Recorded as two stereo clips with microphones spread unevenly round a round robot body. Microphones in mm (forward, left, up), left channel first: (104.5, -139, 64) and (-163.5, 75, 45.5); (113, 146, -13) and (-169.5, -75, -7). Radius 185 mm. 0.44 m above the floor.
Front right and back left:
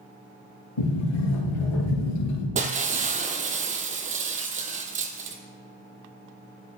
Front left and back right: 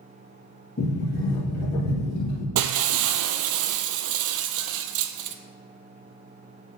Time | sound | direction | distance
0.8 | a sliding door | 30° right | 3 m
2.5 | breaking glass | 155° right | 0.6 m